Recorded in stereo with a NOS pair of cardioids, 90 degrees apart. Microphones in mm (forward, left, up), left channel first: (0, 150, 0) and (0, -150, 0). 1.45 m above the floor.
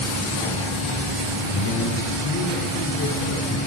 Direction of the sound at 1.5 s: 65° left.